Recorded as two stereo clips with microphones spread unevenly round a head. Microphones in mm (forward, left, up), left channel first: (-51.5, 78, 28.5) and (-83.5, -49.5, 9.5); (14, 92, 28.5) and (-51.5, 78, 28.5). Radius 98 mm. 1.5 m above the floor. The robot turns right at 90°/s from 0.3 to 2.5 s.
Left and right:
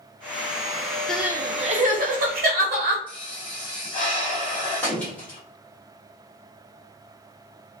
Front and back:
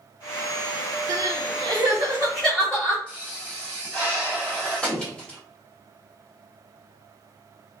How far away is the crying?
About 0.6 m.